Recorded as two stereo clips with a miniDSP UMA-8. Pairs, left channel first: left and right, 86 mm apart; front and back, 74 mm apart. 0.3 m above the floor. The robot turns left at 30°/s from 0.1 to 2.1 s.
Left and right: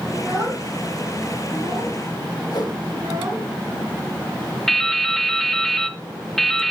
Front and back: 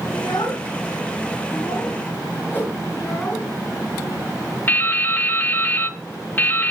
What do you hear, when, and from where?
0.1 s a child speaking: 10° right, 2.5 m; by 3.5 s 65° right, 2.5 m
2.5 s a whoosh: 60° left, 3 m
4.7 s dripping: 10° left, 0.7 m